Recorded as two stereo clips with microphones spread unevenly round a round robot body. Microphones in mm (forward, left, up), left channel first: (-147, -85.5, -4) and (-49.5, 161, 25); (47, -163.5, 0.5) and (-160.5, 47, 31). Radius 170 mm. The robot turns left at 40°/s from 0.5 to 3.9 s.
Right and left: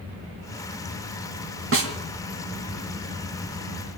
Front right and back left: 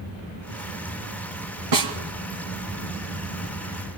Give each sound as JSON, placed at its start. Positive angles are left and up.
{"t": 1.7, "sound": "a snare drum", "azimuth_deg": 110, "distance_m": 2.5}